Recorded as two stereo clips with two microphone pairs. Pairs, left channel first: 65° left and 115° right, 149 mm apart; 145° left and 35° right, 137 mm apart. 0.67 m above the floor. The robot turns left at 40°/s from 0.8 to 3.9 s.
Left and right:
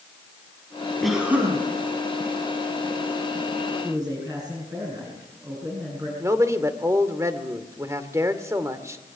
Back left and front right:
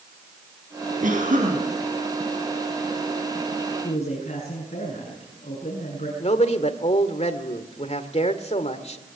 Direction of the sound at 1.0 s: 25° right.